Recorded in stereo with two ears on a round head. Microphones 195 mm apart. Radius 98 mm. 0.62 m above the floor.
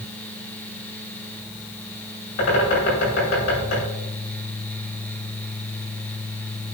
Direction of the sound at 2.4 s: 80° left.